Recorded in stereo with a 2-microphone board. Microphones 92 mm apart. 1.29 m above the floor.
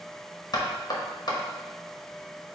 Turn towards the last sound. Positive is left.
turn(degrees=45)  # may be behind; listen again after turning